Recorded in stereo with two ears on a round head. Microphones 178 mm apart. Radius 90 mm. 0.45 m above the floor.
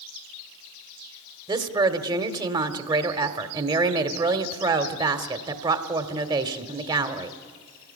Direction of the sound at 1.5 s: 20° right (ahead or behind).